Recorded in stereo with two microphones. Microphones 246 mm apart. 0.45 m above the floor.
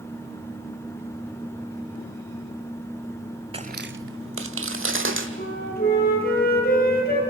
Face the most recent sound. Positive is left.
turn(degrees=40)  # may be behind; listen again after turning